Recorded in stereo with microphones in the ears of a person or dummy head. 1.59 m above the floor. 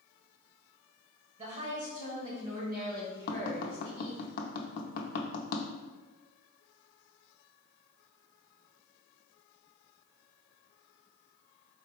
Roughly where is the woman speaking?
Right.